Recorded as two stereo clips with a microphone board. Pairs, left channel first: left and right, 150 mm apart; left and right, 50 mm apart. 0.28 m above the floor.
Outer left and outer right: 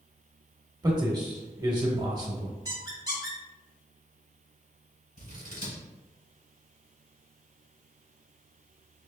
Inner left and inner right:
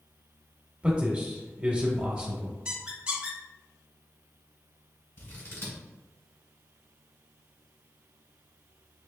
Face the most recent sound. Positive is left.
turn(degrees=65)  # may be behind; listen again after turning